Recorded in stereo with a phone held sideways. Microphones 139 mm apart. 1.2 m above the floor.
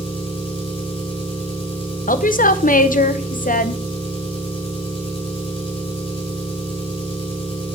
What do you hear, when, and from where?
0.0 s an engine running: 40° left (ahead or behind), 5.5 m
2.1 s a woman speaking: 80° left, 0.7 m